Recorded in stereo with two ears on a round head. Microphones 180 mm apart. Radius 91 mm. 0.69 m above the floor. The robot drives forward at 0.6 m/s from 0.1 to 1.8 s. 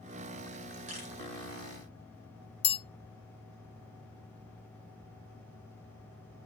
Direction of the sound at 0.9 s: 35° right (ahead or behind).